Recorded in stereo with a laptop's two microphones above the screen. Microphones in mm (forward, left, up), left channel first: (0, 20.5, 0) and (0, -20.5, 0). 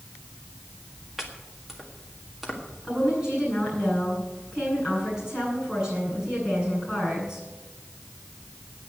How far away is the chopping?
About 1.7 m.